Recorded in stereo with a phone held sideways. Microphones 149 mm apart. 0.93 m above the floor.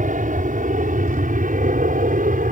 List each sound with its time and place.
0.0 s an aircraft: 60° right (ahead or behind); by 2.5 s 65° right (ahead or behind)